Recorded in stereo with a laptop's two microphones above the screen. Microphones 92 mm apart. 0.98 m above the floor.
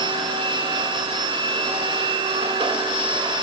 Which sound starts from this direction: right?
A machine running, at 0.0 s.